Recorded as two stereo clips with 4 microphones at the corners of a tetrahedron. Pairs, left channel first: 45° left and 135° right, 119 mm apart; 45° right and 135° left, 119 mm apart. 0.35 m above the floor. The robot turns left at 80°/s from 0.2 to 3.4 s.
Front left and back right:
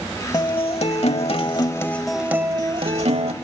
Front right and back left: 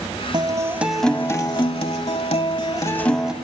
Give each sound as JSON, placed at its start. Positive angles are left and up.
{"t": 0.3, "sound": "a guitar", "azimuth_deg": 95, "distance_m": 0.9}